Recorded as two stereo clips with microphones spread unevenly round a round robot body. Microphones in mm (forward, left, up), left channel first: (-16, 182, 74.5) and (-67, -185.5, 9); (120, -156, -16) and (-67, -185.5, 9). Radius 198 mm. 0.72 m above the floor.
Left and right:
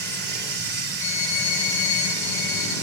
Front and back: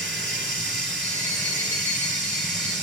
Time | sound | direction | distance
0.0 | running water | 160° right | 8 m
1.0 | a violin | 115° left | 10 m